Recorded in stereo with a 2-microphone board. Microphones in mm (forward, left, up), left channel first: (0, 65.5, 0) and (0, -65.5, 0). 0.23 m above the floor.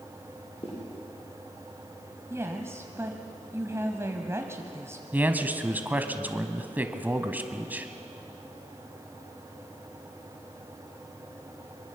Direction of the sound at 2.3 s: 20° right (ahead or behind).